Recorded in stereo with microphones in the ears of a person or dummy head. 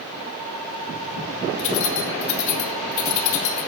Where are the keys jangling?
70° left (ahead or behind), 3 m.